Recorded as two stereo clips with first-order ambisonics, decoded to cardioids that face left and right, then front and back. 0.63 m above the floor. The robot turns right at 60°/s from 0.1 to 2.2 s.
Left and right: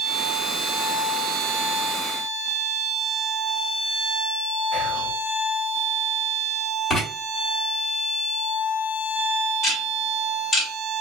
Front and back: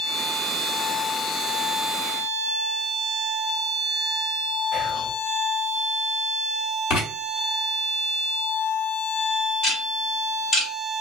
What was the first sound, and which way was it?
Whispering, 60° right.